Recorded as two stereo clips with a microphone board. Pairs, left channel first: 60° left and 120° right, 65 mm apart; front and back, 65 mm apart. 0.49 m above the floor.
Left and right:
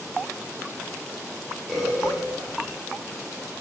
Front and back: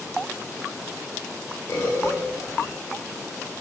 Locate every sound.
1.7 s a bird: 35° right, 1.6 m